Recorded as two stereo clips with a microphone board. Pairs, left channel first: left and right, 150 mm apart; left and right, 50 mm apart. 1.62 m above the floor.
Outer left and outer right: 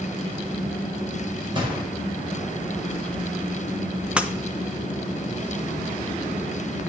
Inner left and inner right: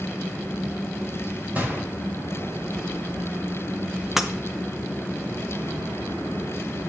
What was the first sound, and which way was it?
A gunshot, 35° right (ahead or behind).